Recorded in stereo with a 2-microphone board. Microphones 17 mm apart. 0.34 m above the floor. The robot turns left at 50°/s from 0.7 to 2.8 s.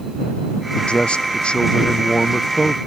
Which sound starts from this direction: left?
A man speaking, at 0.8 s.